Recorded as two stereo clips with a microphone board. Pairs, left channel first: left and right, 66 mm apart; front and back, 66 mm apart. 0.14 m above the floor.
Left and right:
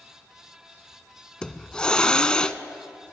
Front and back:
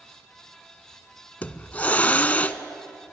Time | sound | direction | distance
1.4 | a hiss | 30° left | 0.6 m